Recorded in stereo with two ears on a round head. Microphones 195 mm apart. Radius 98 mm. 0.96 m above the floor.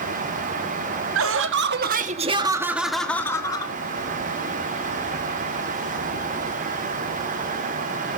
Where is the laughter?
65° right (ahead or behind), 1.7 m; by 3.7 s 20° left (ahead or behind), 2 m.